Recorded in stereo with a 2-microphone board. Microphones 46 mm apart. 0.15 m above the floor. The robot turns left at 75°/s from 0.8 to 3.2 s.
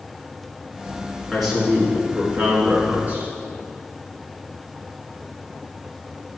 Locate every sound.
1.3 s a man speaking: 10° left, 2 m; by 3.3 s 135° right, 2 m